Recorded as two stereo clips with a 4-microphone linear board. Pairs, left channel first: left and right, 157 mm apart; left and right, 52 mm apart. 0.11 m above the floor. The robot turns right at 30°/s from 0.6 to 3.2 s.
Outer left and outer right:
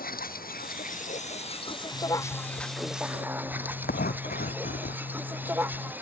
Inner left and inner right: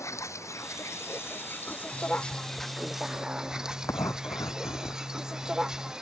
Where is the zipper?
65° left; by 5.9 s 105° left.